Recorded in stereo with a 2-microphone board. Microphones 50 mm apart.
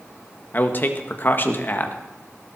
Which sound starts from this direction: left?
A man speaking, at 0.5 s.